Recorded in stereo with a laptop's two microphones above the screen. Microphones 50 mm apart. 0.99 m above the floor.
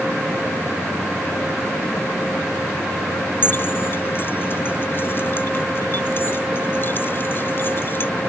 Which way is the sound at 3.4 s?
45° left (ahead or behind).